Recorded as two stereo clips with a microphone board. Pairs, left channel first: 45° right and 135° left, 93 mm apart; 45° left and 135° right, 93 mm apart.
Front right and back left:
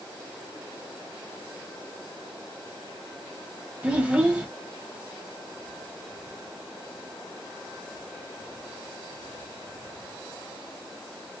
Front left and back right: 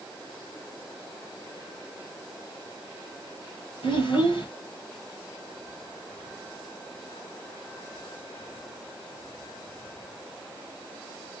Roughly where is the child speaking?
Ahead left.